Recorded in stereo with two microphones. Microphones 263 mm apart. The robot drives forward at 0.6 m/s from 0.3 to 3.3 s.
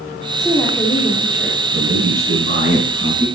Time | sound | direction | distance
0.4 | a woman speaking | 5° left (ahead or behind) | 2.5 m
1.7 | a man speaking | 50° right (ahead or behind) | 7.5 m